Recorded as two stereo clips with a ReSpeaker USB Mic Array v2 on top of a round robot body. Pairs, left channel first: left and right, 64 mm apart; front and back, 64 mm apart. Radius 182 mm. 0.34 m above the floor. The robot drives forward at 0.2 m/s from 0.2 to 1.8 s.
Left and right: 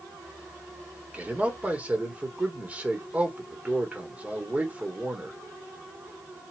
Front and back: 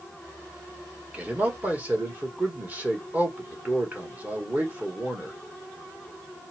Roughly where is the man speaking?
Behind right.